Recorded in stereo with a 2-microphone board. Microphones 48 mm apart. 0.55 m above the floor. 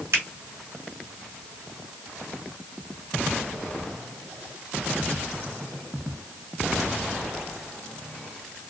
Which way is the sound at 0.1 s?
75° right (ahead or behind).